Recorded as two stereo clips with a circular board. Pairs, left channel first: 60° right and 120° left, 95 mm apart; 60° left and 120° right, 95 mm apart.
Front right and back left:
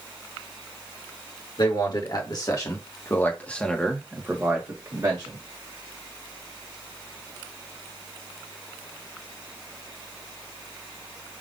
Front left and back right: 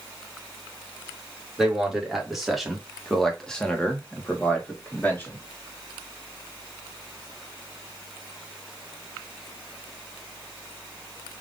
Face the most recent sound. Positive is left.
turn(degrees=125)